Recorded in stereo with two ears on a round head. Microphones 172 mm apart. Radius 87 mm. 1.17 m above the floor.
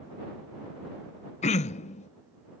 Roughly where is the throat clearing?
Left.